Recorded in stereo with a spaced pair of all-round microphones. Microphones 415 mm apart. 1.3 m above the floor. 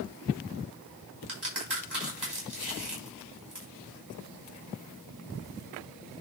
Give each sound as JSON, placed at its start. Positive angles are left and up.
{"t": 1.3, "sound": "a crack", "side_deg": -75, "distance_m": 5.0}